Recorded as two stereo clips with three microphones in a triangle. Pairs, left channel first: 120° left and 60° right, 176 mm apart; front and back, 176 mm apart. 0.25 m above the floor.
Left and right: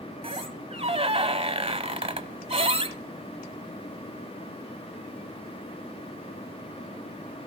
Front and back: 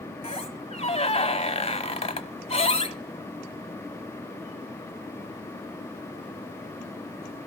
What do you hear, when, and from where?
0.2 s a squeak: 25° right, 1.1 m